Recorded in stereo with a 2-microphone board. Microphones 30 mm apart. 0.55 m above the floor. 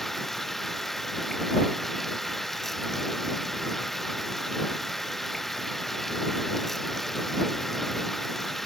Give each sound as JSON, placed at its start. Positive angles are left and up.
{"t": 0.0, "sound": "running water", "side_deg": 5}